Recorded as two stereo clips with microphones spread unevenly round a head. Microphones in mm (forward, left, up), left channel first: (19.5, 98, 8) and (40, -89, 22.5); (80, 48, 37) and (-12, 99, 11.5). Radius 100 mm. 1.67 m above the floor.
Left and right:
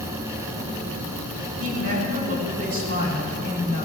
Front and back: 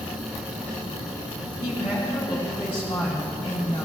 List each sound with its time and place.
1.6 s a woman speaking: 85° right, 4.5 m